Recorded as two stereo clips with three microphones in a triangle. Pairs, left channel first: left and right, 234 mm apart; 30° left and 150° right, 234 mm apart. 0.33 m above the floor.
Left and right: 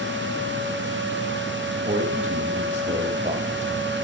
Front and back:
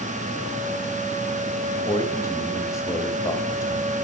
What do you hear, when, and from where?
1.7 s a man speaking: 40° right, 1.5 m